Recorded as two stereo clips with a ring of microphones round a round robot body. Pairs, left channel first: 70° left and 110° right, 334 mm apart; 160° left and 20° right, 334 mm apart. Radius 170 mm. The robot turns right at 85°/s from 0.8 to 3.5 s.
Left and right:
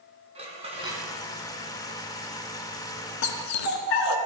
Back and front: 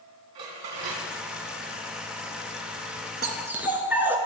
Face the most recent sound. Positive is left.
turn(degrees=60)